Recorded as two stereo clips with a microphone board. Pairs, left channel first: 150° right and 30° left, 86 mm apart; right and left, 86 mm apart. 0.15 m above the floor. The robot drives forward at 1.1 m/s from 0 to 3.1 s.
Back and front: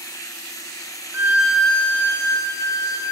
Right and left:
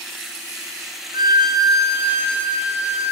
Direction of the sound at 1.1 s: 85° left.